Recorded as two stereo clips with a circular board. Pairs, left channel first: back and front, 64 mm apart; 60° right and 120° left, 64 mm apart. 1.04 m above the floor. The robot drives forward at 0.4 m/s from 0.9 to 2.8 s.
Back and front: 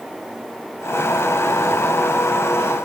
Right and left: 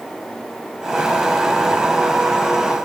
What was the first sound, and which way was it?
Only background noise.